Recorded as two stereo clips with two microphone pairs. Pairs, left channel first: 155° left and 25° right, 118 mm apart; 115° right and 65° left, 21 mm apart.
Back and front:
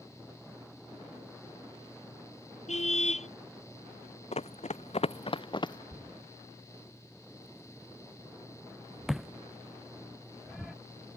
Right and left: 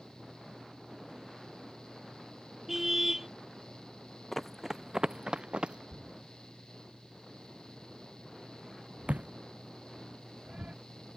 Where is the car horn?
145° left.